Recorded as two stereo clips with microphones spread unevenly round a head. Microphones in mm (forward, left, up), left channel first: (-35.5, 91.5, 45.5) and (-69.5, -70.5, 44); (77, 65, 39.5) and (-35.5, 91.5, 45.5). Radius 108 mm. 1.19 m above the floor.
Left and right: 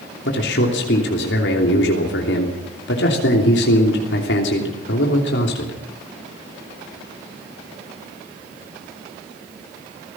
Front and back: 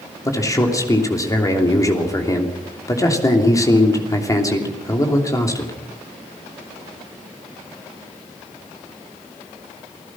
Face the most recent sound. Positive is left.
turn(degrees=50)